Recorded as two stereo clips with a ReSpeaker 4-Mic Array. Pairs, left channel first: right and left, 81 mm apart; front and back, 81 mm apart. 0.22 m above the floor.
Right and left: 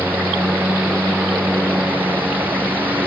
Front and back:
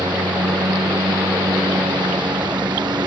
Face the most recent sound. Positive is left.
turn(degrees=160)